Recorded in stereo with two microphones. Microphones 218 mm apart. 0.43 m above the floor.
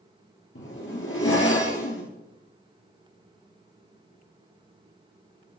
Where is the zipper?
70° left (ahead or behind), 1.8 m.